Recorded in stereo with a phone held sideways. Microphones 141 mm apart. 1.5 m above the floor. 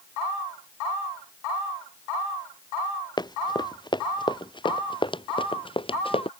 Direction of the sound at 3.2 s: 30° left (ahead or behind).